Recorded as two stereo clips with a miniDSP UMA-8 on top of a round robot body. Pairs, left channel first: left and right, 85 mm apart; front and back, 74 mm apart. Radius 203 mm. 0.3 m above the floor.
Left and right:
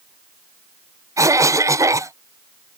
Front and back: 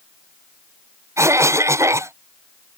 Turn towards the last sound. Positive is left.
turn(degrees=-135)